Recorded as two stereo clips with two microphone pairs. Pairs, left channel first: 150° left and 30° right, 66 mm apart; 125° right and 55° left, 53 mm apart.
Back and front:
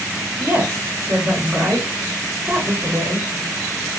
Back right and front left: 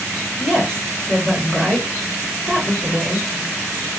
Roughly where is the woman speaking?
Ahead right.